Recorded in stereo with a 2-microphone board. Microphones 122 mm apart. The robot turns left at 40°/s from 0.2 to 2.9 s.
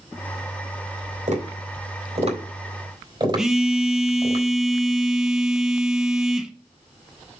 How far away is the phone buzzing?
About 1.0 m.